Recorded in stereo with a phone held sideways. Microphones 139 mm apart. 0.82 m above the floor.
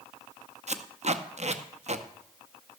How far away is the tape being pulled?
About 0.6 m.